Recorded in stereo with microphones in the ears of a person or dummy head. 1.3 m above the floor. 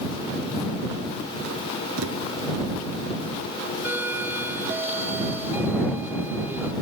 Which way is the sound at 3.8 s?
10° right (ahead or behind).